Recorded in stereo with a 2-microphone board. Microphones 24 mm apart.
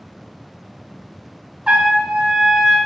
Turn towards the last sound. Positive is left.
turn(degrees=-45)  # may be behind; listen again after turning